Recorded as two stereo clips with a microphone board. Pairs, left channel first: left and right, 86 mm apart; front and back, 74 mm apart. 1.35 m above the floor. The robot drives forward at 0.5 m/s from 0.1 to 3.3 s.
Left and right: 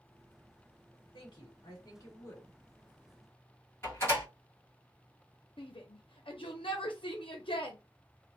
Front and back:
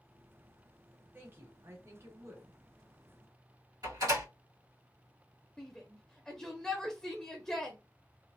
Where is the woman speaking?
115° left, 1.2 m; by 2.6 s 140° left, 1.6 m.